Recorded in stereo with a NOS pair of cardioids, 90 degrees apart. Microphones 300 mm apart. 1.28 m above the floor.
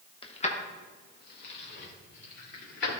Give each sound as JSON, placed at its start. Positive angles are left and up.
{"t": 0.2, "sound": "keys jangling", "azimuth_deg": 15, "distance_m": 1.0}